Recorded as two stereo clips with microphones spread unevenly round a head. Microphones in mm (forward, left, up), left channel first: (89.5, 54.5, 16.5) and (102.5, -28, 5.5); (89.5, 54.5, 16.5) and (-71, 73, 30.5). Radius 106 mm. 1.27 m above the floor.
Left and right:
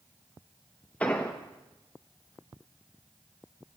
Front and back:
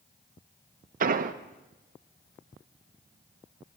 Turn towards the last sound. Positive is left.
turn(degrees=170)